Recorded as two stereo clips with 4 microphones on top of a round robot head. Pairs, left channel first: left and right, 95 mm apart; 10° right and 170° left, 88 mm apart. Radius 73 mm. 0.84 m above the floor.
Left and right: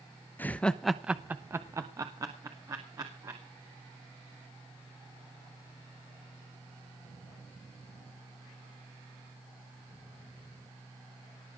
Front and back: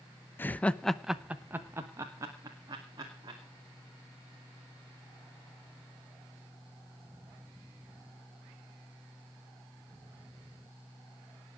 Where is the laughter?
35° left, 1.0 m; by 3.4 s 140° right, 3 m.